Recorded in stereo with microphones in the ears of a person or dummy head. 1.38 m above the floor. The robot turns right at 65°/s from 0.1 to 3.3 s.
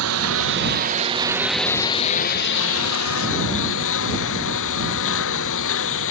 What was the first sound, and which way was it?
A lawn mower, 95° right.